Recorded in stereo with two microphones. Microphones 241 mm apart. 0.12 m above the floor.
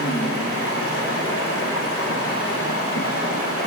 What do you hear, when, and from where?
0.0 s running water: 65° left (ahead or behind), 2.5 m